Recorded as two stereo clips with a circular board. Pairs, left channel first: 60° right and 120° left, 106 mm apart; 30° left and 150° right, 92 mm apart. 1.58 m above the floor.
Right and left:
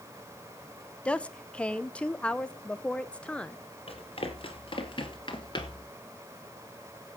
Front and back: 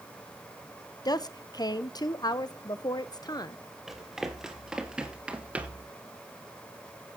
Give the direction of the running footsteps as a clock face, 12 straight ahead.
2 o'clock.